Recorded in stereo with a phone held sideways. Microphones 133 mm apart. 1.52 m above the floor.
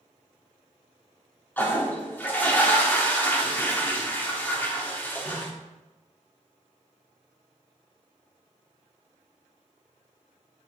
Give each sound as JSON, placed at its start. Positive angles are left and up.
{"t": 1.6, "sound": "a toilet flushing", "side_deg": 15, "distance_m": 1.4}